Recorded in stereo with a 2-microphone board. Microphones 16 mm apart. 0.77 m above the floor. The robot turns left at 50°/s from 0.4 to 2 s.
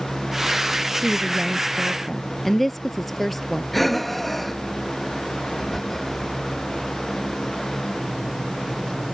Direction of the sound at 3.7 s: 5° left (ahead or behind).